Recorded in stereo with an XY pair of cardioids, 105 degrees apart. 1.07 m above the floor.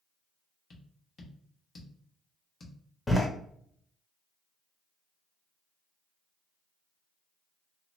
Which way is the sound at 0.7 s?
45° left.